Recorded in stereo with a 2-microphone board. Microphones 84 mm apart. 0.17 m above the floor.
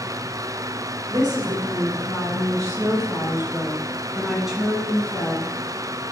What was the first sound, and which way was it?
A woman speaking, 60° right (ahead or behind).